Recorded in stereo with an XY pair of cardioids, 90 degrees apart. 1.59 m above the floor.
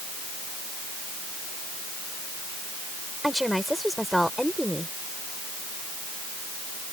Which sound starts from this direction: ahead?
A woman speaking, at 3.2 s.